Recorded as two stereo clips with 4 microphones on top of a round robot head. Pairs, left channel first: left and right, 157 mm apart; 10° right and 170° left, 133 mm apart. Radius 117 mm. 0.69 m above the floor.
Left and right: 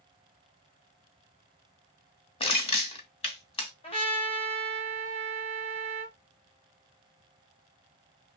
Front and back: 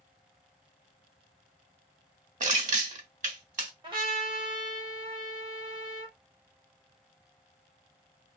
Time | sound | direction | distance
2.4 | crushing | 145° left | 1.1 m
3.8 | a trumpet | 130° left | 1.3 m